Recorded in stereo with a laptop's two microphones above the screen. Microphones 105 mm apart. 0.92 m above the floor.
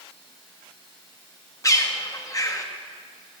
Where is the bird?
30° left (ahead or behind), 0.7 m.